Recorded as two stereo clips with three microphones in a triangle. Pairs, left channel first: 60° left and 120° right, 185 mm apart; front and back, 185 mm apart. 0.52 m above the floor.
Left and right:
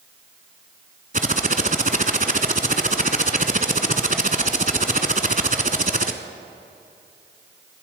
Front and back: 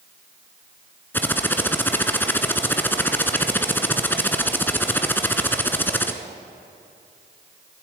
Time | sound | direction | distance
1.1 | typing on a keyboard | 80° right | 1.0 m